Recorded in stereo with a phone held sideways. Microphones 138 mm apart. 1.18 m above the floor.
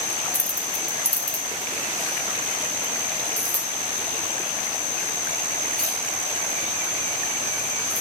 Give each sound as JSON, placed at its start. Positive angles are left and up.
{"t": 0.3, "sound": "keys jangling", "side_deg": 65, "distance_m": 0.6}